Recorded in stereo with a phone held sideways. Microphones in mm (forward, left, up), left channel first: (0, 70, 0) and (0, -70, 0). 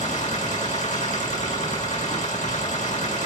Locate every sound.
0.0 s a machine running: 60° left (ahead or behind), 5 m